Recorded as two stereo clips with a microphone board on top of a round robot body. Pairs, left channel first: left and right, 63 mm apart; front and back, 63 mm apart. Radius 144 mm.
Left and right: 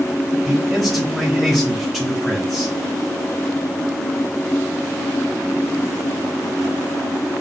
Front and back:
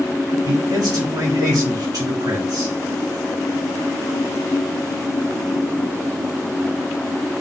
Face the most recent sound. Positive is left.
turn(degrees=175)